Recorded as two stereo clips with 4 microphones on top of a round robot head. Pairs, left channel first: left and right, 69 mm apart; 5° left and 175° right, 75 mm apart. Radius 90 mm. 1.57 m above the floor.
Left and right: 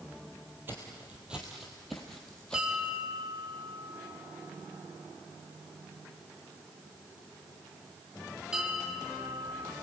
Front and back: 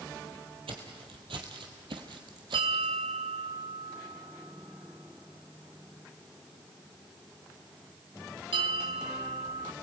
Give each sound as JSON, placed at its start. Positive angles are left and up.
{"t": 0.7, "sound": "footsteps", "azimuth_deg": -160, "distance_m": 2.5}
{"t": 2.5, "sound": "a bell", "azimuth_deg": -175, "distance_m": 2.5}